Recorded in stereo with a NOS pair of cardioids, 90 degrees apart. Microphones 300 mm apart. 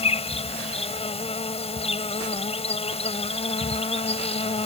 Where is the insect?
20° left.